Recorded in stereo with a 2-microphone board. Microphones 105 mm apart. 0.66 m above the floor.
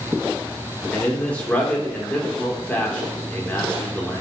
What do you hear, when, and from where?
0.9 s a man speaking: 10° left (ahead or behind), 1.9 m